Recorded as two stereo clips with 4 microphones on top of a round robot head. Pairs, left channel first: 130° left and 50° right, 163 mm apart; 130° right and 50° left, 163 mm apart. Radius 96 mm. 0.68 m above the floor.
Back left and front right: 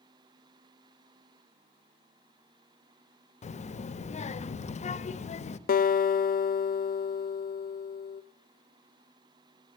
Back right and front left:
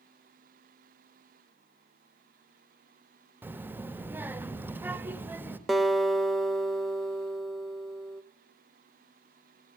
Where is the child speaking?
120° left, 0.6 m.